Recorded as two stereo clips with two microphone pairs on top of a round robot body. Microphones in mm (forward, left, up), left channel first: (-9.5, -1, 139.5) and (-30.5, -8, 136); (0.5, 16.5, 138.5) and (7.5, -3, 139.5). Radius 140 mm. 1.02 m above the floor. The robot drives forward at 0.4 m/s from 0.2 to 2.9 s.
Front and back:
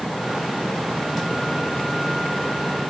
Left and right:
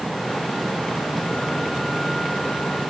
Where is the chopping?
I don't hear chopping.